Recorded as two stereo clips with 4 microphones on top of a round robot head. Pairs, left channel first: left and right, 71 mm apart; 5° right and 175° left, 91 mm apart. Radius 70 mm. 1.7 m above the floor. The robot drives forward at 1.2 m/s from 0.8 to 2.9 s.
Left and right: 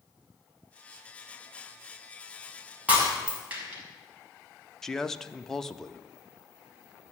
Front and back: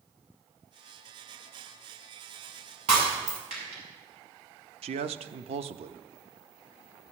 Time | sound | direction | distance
2.9 | breaking glass | 160° right | 6 m
4.8 | a man speaking | 175° left | 0.7 m